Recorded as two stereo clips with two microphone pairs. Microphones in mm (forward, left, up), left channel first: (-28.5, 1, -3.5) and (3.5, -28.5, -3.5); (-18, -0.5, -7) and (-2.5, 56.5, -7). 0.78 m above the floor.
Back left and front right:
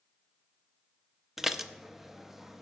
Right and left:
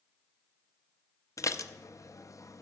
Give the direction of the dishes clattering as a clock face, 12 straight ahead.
4 o'clock.